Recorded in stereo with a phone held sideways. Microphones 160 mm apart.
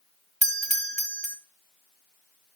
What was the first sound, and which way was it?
A doorbell, 45° right (ahead or behind).